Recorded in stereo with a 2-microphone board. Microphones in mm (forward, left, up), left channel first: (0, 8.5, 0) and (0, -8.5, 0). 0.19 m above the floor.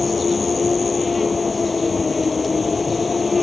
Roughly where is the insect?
Centre.